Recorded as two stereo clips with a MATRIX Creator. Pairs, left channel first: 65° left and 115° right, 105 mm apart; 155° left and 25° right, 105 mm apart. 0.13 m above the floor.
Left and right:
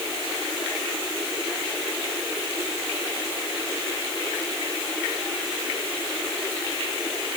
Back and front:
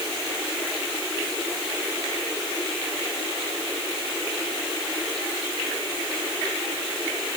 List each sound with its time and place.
Only background noise.